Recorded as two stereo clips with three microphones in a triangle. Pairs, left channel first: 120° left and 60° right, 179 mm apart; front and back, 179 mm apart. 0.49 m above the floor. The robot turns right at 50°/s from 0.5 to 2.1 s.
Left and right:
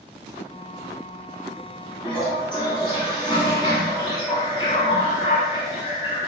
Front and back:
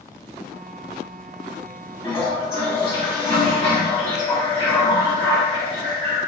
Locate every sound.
2.0 s a toilet flushing: 55° left, 1.0 m; by 6.2 s 60° left, 1.0 m